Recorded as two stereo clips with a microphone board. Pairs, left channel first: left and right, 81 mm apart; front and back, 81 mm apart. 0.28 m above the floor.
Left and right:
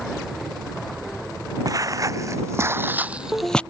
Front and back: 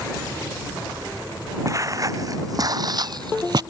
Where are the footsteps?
130° right; by 3.6 s 165° left.